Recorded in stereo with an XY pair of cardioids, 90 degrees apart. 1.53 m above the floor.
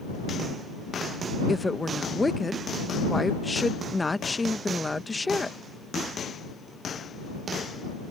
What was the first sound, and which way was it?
A woman speaking, 20° left.